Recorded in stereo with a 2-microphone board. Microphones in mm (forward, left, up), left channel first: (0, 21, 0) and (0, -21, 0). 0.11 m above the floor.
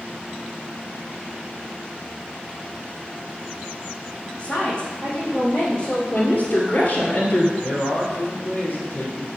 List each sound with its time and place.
4.4 s a woman speaking: 30° left (ahead or behind), 4.5 m
6.1 s a woman speaking: 40° left (ahead or behind), 2 m
7.6 s a man speaking: 55° left (ahead or behind), 3.5 m